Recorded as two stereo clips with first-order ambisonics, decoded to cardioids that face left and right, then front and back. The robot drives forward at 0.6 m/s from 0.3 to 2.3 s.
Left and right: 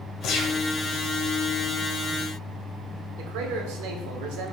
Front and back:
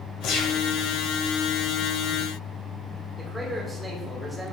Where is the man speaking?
95° right, 1.8 m.